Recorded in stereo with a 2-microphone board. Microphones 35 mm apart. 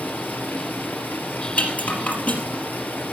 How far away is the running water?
About 3.5 m.